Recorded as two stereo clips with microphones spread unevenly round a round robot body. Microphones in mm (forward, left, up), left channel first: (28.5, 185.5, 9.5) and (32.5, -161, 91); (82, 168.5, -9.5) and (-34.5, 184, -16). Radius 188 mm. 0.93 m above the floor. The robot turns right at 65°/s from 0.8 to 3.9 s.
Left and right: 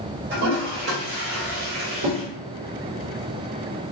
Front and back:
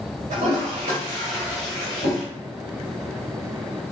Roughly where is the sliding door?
I don't hear a sliding door.